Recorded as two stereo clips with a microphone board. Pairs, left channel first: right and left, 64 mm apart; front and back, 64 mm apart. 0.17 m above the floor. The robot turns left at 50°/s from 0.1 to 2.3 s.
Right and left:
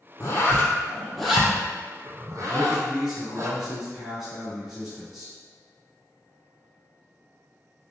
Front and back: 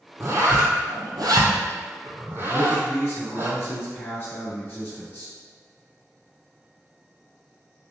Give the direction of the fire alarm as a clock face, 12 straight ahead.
No fire alarm in this recording.